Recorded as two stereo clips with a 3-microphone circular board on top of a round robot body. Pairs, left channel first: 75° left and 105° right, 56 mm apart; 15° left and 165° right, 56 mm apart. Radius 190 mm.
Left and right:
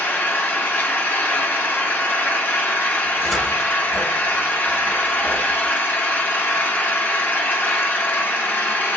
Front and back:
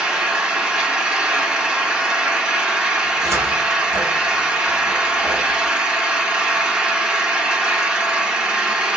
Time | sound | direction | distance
0.0 | an engine running | 120° left | 1.6 m
3.0 | a cupboard door | 165° left | 0.9 m